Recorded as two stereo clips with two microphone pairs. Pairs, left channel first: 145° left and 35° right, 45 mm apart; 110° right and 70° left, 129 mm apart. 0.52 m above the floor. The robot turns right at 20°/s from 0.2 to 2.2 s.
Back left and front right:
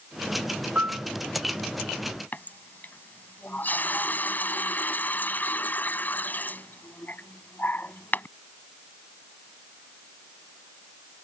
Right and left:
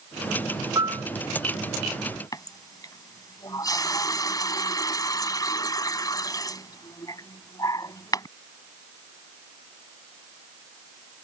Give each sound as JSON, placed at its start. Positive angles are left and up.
{"t": 0.8, "sound": "a piano", "azimuth_deg": 10}
{"t": 2.3, "sound": "a running tap", "azimuth_deg": -170}